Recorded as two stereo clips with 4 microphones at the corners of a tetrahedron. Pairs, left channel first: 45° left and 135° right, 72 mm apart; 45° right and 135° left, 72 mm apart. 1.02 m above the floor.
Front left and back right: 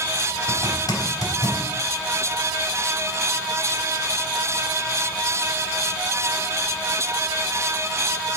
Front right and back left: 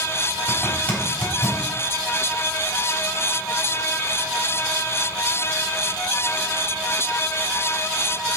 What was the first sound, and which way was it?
A zipper, 25° left.